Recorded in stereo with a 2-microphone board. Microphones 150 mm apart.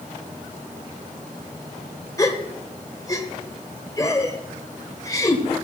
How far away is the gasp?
About 1.6 m.